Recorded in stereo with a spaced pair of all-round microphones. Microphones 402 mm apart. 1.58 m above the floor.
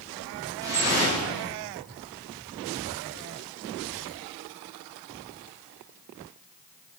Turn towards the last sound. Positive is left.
turn(degrees=-10)  # may be behind; listen again after turning